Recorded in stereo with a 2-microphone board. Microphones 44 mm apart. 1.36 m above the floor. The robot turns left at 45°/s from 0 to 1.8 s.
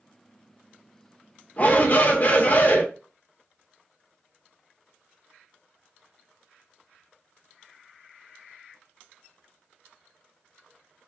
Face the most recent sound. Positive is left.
turn(degrees=45)  # may be behind; listen again after turning